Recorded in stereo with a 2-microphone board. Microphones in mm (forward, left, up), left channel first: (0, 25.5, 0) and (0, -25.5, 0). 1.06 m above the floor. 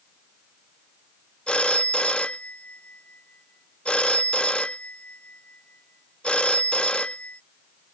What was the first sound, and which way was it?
A phone ringing, 20° left (ahead or behind).